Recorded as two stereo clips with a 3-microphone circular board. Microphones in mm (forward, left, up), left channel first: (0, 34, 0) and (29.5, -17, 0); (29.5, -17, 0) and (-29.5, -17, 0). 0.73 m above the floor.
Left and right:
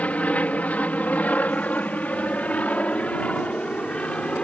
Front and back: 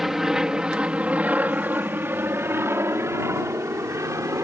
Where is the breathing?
I don't hear breathing.